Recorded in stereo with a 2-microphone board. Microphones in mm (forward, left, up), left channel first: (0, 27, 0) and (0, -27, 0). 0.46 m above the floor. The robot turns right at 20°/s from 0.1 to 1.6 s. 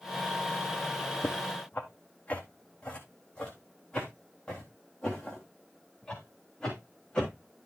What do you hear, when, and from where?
1.2 s footsteps: 40° left (ahead or behind), 1.1 m; by 7.7 s 10° left (ahead or behind), 5 m